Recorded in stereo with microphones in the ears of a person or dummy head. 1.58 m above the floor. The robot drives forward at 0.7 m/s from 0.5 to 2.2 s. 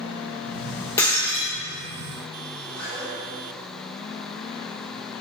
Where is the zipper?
10° left (ahead or behind), 3 m.